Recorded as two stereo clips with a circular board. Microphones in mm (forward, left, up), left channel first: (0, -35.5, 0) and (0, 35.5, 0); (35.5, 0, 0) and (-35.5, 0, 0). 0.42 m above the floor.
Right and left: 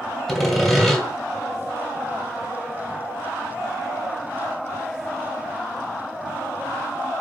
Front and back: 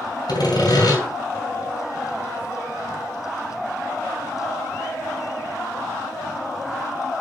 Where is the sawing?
Straight ahead, 2.5 m.